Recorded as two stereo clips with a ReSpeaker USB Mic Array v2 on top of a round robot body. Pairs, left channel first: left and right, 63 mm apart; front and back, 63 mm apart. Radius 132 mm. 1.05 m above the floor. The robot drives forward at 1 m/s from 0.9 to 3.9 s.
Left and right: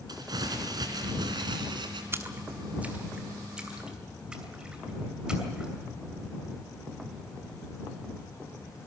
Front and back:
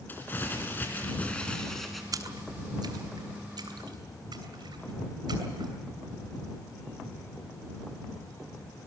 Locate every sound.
0.1 s crumpling: 65° right, 2.5 m; by 2.0 s 90° right, 2.5 m
2.1 s a splash: 145° right, 1.1 m; by 5.7 s 170° right, 2.5 m